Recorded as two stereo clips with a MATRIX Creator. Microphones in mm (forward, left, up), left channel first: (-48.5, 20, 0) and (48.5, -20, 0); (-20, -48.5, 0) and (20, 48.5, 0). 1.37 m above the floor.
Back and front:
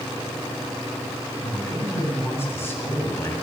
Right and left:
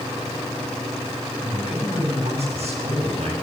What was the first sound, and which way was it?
A man speaking, 90° left.